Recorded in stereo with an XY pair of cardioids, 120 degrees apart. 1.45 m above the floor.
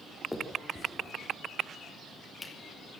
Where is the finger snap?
5° left, 3.5 m.